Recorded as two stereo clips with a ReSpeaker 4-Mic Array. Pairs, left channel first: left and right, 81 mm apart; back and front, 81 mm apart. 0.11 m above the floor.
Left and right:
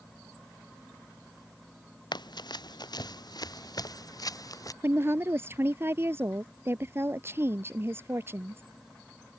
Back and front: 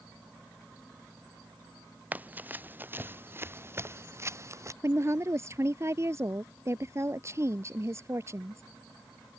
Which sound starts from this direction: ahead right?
A woman speaking, at 4.8 s.